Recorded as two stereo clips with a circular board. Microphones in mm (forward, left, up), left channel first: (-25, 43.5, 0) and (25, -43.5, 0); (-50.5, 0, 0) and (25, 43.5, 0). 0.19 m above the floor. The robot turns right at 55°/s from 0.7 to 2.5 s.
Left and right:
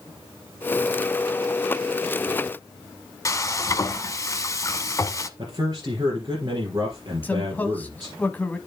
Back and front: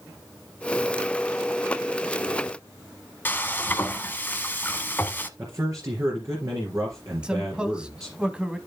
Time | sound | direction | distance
3.2 | frying | 155° left | 0.9 m
5.4 | a man speaking | 15° right | 3 m
7.2 | a man speaking | 90° left | 1.1 m